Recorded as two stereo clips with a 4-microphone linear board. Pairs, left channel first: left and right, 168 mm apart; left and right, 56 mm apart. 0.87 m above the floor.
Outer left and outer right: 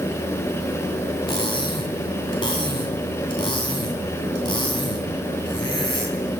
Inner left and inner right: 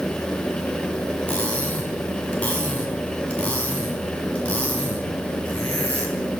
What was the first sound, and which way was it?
Cutlery clinking, 25° left (ahead or behind).